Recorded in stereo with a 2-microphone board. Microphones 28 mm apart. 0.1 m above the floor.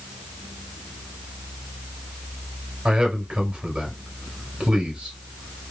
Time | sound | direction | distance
2.9 | a man speaking | 35° right (ahead or behind) | 2 m